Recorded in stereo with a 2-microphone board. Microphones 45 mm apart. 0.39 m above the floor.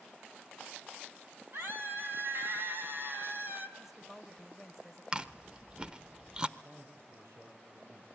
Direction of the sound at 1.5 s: 50° right (ahead or behind).